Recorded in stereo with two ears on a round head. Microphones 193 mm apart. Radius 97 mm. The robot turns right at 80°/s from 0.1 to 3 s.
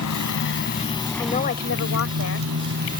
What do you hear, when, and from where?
0.0 s a motorcycle: 85° left; by 3.0 s 40° right
1.2 s a woman speaking: 15° left; by 2.5 s 120° left